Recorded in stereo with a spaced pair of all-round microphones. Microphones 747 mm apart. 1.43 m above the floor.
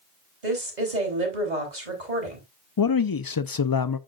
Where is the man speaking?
35° left (ahead or behind), 0.5 m.